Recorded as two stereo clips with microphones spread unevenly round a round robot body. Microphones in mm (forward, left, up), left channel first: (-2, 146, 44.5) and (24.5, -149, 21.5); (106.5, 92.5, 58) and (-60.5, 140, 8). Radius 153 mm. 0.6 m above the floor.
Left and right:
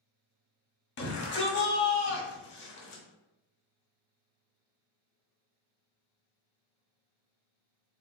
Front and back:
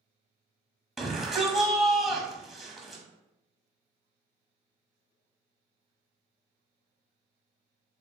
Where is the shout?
105° left, 1.1 m.